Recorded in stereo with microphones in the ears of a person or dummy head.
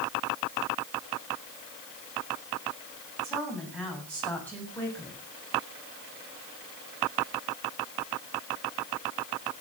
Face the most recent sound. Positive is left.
turn(degrees=15)  # may be behind; listen again after turning